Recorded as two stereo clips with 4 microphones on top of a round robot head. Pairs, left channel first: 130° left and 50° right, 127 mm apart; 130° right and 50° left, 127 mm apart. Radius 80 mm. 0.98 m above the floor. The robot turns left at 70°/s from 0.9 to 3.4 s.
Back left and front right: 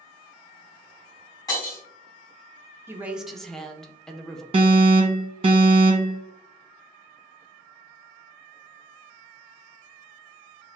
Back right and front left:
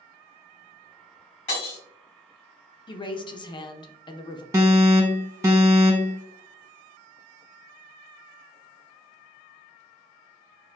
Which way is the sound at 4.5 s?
15° right.